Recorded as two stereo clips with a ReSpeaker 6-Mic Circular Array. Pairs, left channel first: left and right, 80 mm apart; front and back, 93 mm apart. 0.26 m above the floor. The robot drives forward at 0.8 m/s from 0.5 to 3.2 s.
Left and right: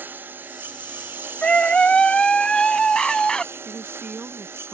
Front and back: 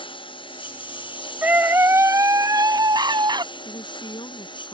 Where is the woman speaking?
20° right.